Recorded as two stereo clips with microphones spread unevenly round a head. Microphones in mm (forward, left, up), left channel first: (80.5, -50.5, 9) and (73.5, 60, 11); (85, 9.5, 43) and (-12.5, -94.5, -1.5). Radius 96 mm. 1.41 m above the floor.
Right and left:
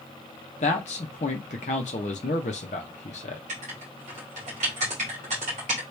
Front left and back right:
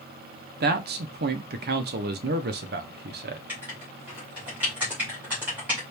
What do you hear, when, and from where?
0.6 s a man speaking: 120° right, 0.8 m
3.5 s writing: 140° left, 1.8 m